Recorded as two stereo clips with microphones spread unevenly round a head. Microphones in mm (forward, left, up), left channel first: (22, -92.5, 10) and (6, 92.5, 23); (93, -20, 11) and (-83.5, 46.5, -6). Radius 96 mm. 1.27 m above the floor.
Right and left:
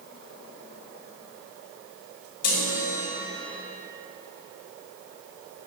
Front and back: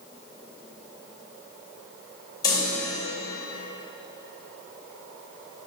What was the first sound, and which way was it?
A chime, 95° right.